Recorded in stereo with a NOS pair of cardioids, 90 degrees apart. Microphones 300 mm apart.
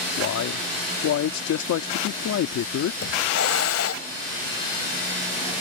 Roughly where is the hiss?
Ahead left.